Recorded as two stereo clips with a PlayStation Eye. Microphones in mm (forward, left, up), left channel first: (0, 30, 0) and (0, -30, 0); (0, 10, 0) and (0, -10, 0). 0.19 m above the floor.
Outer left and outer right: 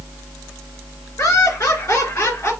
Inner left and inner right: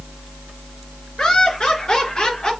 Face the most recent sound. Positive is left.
turn(degrees=55)  # may be behind; listen again after turning